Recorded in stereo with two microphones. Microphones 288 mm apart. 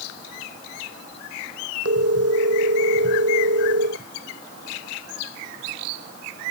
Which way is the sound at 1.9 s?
55° right (ahead or behind).